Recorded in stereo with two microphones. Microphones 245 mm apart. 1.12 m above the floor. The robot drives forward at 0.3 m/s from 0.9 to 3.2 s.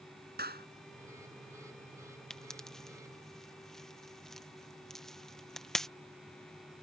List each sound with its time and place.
0.4 s a clap: 40° right (ahead or behind)
2.3 s a pop: centre (ahead or behind)